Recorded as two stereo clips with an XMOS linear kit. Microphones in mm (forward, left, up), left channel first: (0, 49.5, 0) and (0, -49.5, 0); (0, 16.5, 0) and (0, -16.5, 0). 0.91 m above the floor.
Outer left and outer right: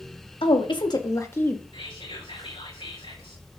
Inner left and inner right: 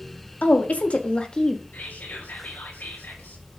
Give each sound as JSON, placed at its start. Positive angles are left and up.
{"t": 0.4, "sound": "a woman speaking", "side_deg": 60, "distance_m": 1.6}
{"t": 1.7, "sound": "whispering", "side_deg": 65, "distance_m": 4.5}